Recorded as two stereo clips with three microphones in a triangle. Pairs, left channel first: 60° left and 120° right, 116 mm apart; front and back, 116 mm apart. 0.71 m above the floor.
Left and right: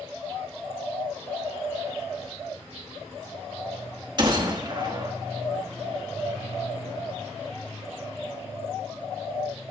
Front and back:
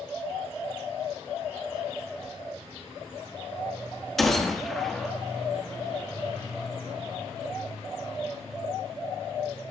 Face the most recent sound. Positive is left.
turn(degrees=-85)